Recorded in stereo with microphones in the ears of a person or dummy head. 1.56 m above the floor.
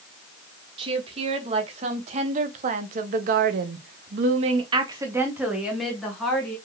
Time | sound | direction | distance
0.8 | a woman speaking | 35° right (ahead or behind) | 1.8 m